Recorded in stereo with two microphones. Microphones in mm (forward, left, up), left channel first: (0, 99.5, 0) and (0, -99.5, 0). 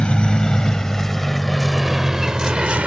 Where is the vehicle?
5° left (ahead or behind); by 2.9 s 5° right (ahead or behind).